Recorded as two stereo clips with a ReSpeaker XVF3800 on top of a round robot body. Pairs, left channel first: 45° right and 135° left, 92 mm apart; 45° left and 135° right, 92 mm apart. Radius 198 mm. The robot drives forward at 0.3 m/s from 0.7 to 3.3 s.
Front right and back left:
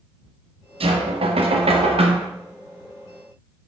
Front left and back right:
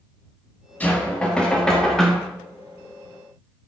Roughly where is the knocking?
Behind left.